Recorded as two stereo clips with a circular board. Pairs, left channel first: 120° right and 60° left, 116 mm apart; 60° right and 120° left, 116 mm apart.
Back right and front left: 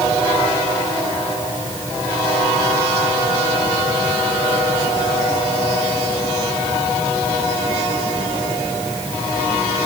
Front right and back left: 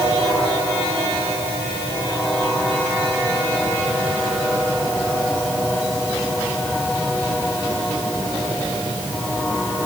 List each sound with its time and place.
Only background noise.